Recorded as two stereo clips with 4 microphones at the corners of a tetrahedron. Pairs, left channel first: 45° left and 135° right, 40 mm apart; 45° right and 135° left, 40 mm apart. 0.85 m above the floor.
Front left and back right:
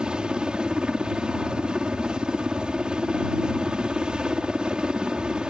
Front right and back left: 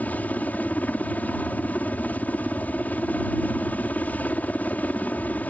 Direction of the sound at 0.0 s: 75° right.